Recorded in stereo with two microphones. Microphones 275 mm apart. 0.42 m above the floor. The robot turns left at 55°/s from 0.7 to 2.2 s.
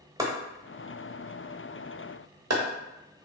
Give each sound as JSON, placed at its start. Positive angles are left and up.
{"t": 0.2, "sound": "chopping", "side_deg": -15, "distance_m": 0.7}